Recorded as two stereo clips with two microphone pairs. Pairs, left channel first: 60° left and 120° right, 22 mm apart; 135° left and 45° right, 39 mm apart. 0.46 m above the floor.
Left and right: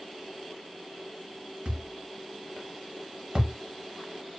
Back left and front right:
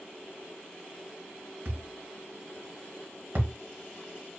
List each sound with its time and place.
1.6 s a thud: 75° right, 0.9 m